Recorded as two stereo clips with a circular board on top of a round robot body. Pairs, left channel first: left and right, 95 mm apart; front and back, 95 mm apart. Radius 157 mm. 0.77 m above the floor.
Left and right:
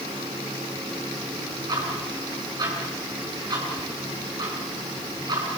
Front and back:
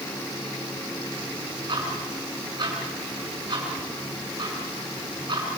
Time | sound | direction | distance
1.7 | ticking | 140° right | 6.5 m